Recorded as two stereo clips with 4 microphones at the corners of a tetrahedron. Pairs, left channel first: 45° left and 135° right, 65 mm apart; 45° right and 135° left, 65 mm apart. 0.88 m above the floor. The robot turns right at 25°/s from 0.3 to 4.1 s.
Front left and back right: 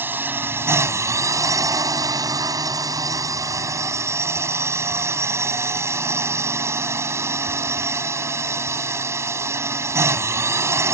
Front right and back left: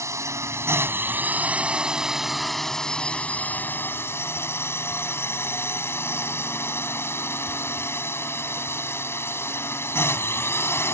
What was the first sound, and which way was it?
A drone, 170° left.